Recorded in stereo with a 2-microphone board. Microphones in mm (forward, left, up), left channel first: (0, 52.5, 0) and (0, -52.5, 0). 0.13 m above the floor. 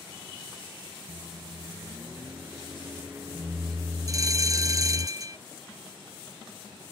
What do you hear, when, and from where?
1.1 s a microwave: 25° right (ahead or behind)
4.1 s a bell: 35° right (ahead or behind)